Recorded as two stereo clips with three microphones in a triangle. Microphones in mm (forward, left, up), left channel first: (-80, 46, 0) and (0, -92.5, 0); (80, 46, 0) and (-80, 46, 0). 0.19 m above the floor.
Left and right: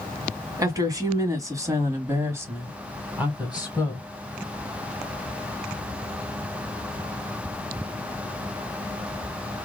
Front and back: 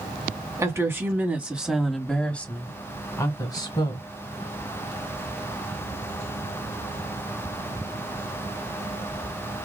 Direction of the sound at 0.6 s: 120° right.